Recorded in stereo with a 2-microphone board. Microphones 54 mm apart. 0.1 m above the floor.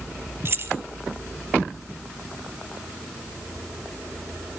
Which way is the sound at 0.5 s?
45° right (ahead or behind).